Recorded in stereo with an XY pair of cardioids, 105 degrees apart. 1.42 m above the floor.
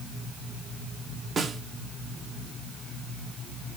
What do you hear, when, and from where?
1.4 s a snare drum: 35° right, 1.5 m